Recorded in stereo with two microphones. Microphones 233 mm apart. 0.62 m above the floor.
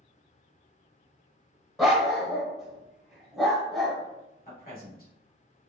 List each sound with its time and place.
1.8 s a dog barking: centre (ahead or behind), 1.2 m
4.5 s a man speaking: 40° left (ahead or behind), 1.7 m